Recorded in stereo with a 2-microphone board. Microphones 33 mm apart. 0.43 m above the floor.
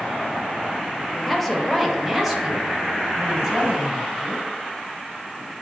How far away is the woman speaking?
About 1.3 m.